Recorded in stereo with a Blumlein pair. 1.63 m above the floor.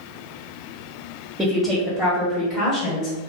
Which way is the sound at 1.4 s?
15° right.